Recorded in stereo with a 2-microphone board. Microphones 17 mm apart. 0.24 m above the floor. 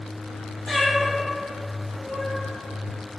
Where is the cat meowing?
25° left (ahead or behind), 0.7 m; by 2.4 s 20° right (ahead or behind), 1.5 m.